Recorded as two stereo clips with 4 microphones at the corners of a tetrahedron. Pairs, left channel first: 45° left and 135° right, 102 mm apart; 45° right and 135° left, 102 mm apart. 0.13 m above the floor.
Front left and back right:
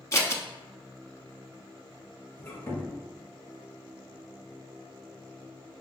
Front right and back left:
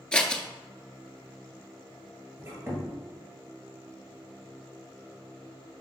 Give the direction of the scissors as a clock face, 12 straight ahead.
11 o'clock.